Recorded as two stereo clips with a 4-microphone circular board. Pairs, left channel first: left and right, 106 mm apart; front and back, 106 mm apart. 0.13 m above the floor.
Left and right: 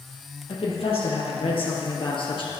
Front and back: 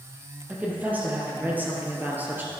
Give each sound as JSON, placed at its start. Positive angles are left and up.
{"t": 0.5, "sound": "a woman speaking", "azimuth_deg": 105, "distance_m": 3.5}